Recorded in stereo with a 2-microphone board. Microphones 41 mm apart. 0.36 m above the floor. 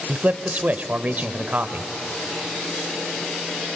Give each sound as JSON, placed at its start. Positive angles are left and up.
{"t": 0.1, "sound": "a man speaking", "side_deg": -40, "distance_m": 1.1}